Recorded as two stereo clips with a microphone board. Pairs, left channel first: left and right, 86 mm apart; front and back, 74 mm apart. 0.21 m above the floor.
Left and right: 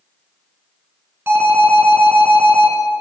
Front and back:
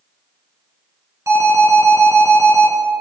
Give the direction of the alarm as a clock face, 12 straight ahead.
5 o'clock.